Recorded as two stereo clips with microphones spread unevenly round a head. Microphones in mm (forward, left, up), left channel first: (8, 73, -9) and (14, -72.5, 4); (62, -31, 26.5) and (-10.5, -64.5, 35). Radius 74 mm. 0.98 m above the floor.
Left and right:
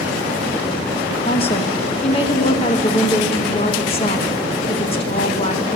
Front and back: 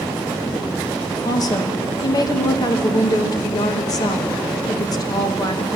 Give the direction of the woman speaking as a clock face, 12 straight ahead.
10 o'clock.